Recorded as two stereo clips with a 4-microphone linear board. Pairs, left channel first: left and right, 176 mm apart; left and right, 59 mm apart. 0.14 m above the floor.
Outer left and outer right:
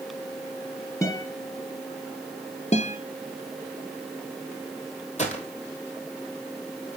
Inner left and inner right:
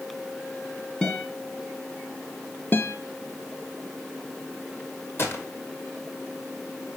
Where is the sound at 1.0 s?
15° left (ahead or behind), 1.3 m.